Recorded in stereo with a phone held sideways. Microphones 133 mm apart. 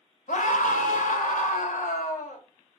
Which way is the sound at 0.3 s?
80° left.